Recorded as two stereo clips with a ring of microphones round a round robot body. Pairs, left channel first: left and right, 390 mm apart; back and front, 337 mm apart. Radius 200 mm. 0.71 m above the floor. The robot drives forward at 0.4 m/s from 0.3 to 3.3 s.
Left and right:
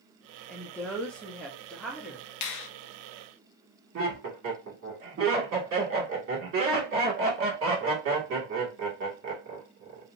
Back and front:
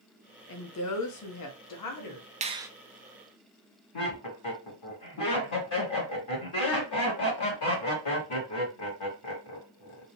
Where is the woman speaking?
175° left, 0.7 m; by 2.3 s straight behind, 1.3 m.